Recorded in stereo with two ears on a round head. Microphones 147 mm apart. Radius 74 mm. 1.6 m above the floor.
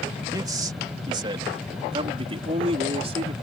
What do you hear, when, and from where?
0.3 s a man speaking: 20° right (ahead or behind); by 3.3 s 40° right (ahead or behind)